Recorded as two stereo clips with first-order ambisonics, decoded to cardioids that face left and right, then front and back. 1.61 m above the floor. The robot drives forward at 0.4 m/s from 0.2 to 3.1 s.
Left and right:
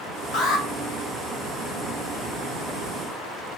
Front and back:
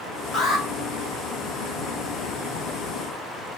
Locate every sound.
0.3 s an alarm: 55° left, 0.9 m; by 0.7 s 60° left, 0.8 m